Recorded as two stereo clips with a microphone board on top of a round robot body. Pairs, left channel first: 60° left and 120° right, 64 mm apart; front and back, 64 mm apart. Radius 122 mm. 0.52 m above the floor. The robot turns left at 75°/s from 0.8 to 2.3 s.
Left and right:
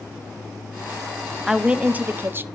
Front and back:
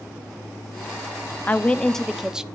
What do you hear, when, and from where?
1.5 s a woman speaking: 45° right, 1.0 m; by 2.4 s 105° right, 1.0 m